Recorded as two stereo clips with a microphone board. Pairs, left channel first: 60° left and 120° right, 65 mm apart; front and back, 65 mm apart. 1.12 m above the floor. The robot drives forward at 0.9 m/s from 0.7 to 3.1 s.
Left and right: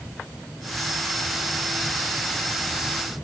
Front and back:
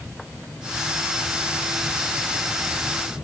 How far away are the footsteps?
No footsteps in this recording.